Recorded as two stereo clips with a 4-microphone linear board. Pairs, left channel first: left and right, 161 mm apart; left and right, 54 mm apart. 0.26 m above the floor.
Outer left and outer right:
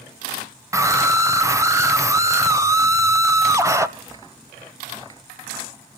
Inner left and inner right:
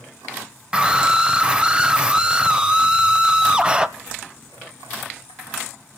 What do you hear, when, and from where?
0.7 s a scream: 20° right (ahead or behind), 1.2 m